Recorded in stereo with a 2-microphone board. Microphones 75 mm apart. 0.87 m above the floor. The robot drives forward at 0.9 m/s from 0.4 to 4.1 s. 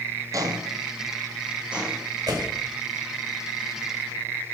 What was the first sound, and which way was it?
Footsteps, 50° right (ahead or behind).